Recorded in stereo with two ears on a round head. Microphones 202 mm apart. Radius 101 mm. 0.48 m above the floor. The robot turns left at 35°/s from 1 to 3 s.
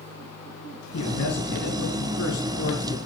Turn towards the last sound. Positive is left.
turn(degrees=35)